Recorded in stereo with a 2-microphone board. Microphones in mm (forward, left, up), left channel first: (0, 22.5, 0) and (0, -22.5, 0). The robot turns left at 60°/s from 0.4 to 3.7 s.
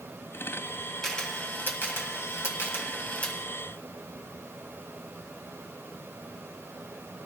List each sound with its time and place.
1.0 s a camera shutter: 10° left (ahead or behind), 1.7 m; by 3.4 s 25° left (ahead or behind), 1.7 m